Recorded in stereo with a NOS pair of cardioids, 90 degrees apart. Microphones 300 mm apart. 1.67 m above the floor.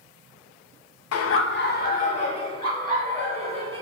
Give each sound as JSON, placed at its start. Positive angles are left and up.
{"t": 1.1, "sound": "laughter", "azimuth_deg": 55, "distance_m": 0.5}